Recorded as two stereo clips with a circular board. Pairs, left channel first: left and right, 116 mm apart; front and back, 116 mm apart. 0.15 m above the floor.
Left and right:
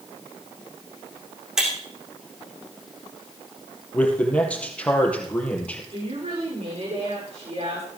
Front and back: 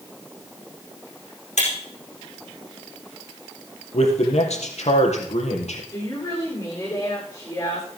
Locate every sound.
1.6 s breaking glass: 5° right, 5 m
3.9 s a man speaking: 10° left, 3.5 m
5.9 s a woman speaking: 60° right, 10 m